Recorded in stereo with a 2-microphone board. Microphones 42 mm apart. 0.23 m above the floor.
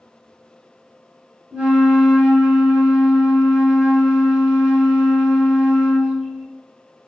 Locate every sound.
1.5 s a flute: 20° right (ahead or behind), 1.4 m